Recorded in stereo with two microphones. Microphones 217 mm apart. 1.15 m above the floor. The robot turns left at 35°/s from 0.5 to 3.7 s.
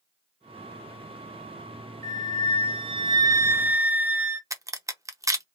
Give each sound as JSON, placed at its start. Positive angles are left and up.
{"t": 2.0, "sound": "a flute", "azimuth_deg": -110, "distance_m": 0.6}
{"t": 4.5, "sound": "a crack", "side_deg": -15, "distance_m": 0.6}